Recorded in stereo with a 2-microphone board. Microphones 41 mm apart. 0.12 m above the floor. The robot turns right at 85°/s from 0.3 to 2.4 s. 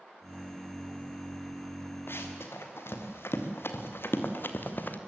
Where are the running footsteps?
65° left (ahead or behind), 3.5 m; by 5.0 s 50° left (ahead or behind), 2 m.